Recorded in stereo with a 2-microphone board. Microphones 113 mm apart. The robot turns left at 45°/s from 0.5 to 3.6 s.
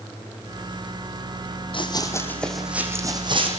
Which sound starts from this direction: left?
Running footsteps, at 1.7 s.